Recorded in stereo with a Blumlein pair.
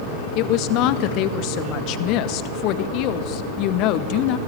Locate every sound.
0.3 s a woman speaking: 40° left, 1.8 m